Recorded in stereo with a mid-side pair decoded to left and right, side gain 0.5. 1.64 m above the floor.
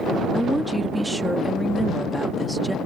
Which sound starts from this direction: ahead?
A woman speaking, at 0.3 s.